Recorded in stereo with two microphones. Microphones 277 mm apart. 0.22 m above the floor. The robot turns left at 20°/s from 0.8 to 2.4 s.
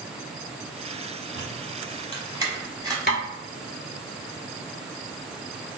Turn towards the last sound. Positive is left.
turn(degrees=40)  # may be behind; listen again after turning